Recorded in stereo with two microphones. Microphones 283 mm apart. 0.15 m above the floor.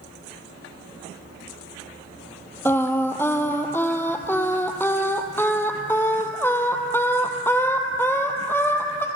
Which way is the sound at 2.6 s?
10° left (ahead or behind).